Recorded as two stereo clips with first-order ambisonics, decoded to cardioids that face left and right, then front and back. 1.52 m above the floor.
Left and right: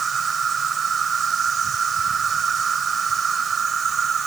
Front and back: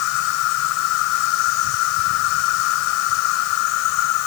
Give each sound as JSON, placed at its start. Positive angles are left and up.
{"t": 0.0, "sound": "an insect", "azimuth_deg": -15}